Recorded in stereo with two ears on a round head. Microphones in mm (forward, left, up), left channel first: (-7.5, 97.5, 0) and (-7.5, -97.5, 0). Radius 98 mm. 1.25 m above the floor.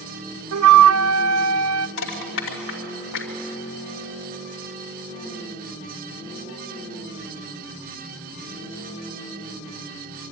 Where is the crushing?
65° left (ahead or behind), 3 m.